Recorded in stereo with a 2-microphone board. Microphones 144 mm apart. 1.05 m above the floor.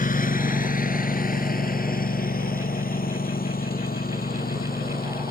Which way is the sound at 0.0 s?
70° left (ahead or behind).